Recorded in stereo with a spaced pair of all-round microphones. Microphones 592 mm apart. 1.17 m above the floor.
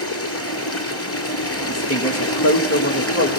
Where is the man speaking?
25° left (ahead or behind), 1.7 m.